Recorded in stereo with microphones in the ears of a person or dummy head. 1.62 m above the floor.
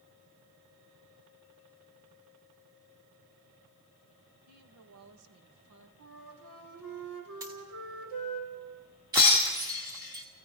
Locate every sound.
4.5 s a woman speaking: 90° right, 3 m; by 5.9 s 80° right, 1.8 m
6.0 s a flute: 80° right, 4 m
7.4 s a dropped coin: 15° right (ahead or behind), 1.9 m
9.1 s breaking glass: 15° right (ahead or behind), 1.3 m